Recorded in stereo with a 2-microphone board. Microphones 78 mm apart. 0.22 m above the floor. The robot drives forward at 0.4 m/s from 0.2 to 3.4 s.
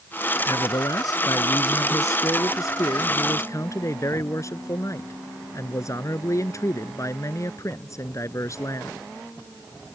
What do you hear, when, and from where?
0.5 s a man speaking: 55° left (ahead or behind); by 9.0 s 40° left (ahead or behind)